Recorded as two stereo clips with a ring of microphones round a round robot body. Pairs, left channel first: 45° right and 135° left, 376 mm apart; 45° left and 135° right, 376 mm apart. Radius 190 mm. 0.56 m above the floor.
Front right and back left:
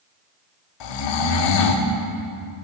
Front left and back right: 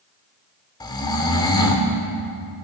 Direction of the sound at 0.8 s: 35° right.